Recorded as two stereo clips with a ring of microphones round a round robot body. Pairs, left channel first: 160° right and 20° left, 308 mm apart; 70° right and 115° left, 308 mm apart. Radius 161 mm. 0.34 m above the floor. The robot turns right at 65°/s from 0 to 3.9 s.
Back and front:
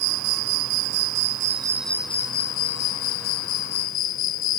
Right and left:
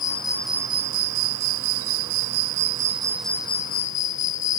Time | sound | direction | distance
0.0 | an insect | 10° right | ?